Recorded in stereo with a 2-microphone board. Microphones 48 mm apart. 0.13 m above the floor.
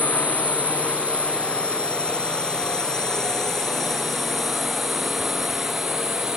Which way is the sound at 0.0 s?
30° left (ahead or behind).